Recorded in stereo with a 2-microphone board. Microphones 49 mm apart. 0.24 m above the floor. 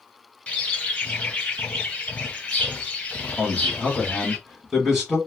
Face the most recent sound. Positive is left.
turn(degrees=-10)  # may be behind; listen again after turning